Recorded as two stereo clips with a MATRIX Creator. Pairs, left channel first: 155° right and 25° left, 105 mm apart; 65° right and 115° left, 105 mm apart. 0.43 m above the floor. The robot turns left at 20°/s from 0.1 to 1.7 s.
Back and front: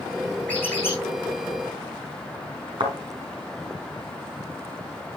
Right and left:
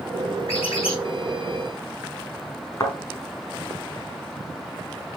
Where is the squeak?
80° right, 6.5 m; by 1.0 s 90° right, 6.5 m.